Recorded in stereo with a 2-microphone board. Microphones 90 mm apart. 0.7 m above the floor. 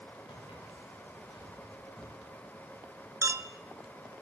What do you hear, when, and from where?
0.3 s footsteps: 70° left (ahead or behind), 8.5 m; by 2.1 s 85° left, 9.5 m
3.2 s a clink: 35° right (ahead or behind), 0.5 m